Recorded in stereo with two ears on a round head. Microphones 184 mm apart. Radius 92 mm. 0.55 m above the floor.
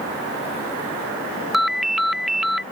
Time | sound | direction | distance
1.5 | a ringtone | centre (ahead or behind) | ?